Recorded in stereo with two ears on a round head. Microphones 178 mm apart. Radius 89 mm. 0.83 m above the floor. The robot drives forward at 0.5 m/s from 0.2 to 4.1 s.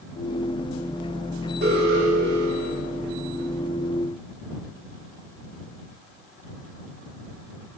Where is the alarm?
60° right (ahead or behind), 5.5 m; by 2.9 s 65° right (ahead or behind), 5.5 m.